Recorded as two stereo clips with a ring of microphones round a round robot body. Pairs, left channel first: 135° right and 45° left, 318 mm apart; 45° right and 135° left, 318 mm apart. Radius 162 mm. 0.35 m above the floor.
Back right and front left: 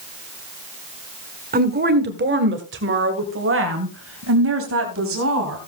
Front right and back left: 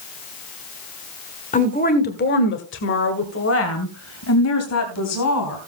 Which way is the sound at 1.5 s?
5° left.